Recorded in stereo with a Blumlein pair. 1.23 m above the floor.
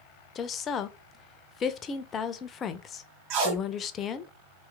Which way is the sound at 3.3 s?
40° right.